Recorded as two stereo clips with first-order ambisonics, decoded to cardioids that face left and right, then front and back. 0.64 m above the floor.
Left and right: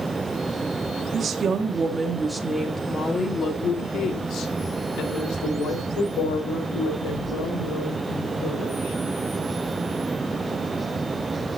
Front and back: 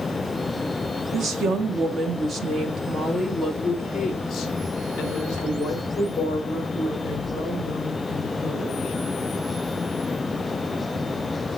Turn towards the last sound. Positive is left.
turn(degrees=65)